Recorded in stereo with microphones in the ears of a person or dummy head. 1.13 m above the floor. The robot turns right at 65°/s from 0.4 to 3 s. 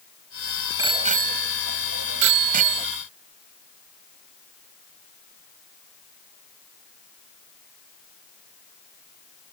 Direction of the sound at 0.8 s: 25° right (ahead or behind).